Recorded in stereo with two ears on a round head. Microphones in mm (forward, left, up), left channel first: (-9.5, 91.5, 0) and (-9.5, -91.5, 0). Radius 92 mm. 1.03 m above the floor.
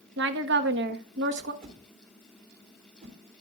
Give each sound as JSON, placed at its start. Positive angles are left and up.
{"t": 0.2, "sound": "a woman speaking", "side_deg": -60, "distance_m": 1.1}
{"t": 1.6, "sound": "a whoosh", "side_deg": -45, "distance_m": 3.0}